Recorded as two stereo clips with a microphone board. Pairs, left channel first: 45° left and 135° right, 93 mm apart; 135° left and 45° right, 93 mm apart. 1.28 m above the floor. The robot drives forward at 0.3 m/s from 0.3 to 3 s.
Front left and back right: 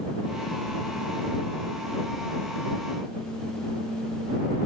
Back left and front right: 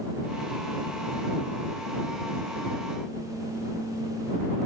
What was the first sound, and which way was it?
Only background noise.